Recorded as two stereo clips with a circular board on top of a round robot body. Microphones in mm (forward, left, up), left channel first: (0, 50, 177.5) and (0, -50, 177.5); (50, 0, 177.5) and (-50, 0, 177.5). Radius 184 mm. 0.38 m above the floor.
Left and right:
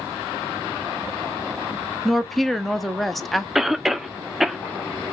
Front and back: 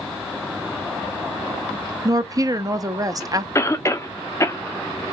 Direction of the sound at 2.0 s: 175° left.